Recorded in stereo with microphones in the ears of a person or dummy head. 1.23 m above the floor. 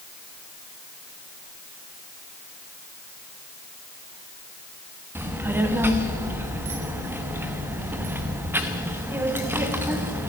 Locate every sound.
5.2 s a child speaking: 10° right (ahead or behind), 1.1 m